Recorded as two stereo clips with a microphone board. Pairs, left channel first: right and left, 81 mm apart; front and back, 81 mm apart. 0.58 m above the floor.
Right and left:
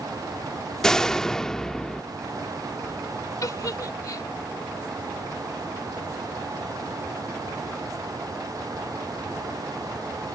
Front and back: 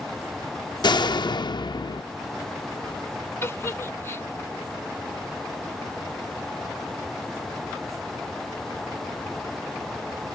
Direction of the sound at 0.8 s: 10° right.